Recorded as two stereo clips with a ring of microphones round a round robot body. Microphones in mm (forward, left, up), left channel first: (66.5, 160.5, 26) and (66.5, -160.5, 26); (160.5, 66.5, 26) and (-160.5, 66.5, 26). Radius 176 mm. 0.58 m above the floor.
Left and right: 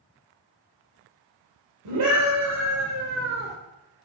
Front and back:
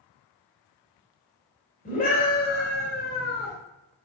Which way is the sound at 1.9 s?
70° right.